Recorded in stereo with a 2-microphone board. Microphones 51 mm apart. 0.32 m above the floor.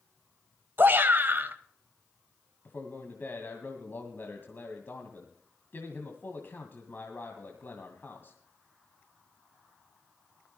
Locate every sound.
0.8 s a shout: 45° right (ahead or behind), 1.3 m
2.6 s a man speaking: 40° left (ahead or behind), 1.9 m